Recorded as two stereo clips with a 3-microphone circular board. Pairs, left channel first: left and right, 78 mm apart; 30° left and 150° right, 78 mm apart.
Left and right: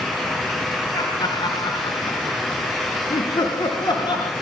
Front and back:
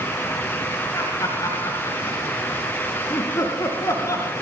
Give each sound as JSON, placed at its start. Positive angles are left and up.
{"t": 0.9, "sound": "laughter", "azimuth_deg": 75, "distance_m": 3.5}